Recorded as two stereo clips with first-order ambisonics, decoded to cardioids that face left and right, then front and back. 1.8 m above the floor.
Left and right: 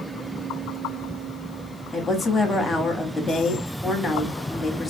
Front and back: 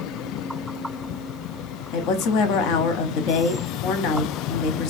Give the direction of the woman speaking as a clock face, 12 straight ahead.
12 o'clock.